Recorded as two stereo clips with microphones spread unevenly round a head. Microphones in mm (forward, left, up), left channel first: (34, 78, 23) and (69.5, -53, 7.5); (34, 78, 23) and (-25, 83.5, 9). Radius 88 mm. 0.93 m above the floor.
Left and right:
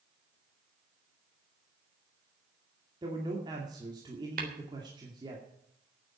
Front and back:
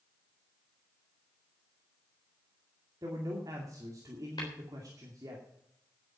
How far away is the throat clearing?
I don't hear throat clearing.